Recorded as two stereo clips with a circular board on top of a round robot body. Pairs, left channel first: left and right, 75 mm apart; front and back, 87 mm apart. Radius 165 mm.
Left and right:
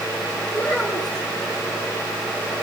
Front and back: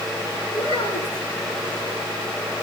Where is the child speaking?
15° left, 8.5 m.